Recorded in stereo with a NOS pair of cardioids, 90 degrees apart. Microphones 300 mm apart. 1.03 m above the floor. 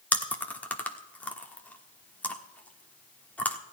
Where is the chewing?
5° left, 1.2 m.